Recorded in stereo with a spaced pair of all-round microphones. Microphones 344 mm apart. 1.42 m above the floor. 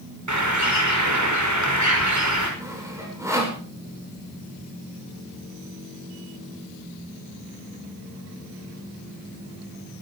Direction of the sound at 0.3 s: 55° right (ahead or behind).